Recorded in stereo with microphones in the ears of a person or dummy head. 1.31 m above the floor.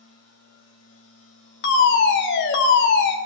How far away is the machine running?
About 9.5 m.